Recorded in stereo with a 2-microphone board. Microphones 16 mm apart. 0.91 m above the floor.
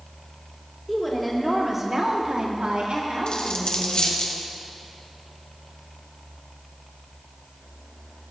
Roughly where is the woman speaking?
Centre.